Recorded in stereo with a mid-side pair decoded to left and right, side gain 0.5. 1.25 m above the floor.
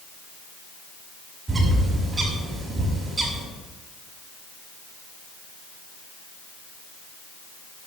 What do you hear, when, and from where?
1.5 s a bird: 30° right, 6.5 m